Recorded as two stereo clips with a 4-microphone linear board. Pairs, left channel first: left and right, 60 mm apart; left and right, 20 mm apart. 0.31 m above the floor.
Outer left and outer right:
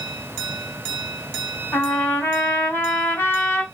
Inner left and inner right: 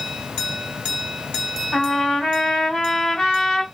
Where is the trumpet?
40° left (ahead or behind), 1.8 m.